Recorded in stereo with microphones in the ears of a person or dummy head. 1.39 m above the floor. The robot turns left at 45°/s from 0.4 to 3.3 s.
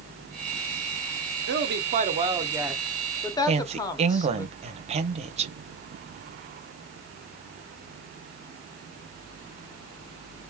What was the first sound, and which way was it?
A woman speaking, 110° right.